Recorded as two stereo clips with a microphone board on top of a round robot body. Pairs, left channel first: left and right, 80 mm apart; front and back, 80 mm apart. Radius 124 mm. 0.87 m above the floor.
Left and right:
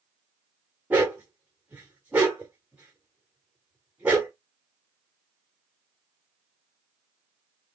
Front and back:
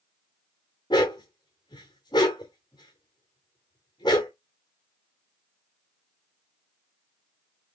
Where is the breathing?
No breathing in this recording.